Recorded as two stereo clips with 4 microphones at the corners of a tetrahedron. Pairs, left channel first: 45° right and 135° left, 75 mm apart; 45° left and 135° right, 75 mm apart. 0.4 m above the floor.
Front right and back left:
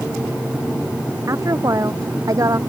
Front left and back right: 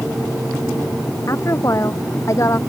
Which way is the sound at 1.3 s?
90° left.